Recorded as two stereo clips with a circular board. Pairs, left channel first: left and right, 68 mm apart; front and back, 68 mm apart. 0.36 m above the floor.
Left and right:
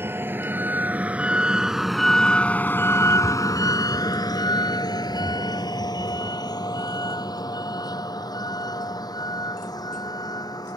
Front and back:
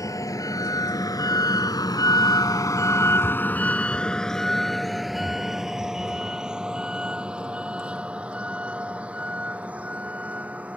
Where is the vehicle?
35° right; by 10.8 s 110° left.